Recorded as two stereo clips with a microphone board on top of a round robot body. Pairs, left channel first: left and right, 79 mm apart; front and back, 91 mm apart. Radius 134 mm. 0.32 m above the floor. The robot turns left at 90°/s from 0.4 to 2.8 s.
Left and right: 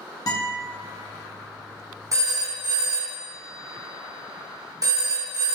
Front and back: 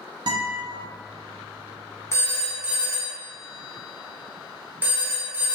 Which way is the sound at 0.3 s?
135° left.